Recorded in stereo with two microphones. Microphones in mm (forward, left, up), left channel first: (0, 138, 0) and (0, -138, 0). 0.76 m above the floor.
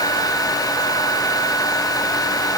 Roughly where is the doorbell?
I don't hear a doorbell.